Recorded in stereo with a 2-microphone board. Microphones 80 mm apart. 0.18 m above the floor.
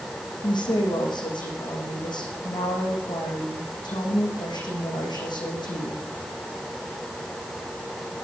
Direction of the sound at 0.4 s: 70° left (ahead or behind).